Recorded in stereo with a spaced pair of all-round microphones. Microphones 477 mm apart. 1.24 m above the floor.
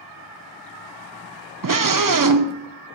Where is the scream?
45° right (ahead or behind), 0.5 m.